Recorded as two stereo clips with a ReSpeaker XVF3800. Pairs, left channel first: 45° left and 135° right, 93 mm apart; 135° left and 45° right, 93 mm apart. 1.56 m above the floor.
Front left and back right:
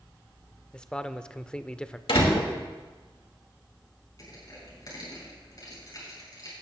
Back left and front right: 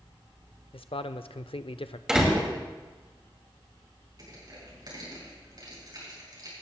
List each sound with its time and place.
0.7 s a man speaking: 125° left, 0.5 m
2.1 s a door slam: 40° left, 2.5 m
4.2 s crushing: straight ahead, 6 m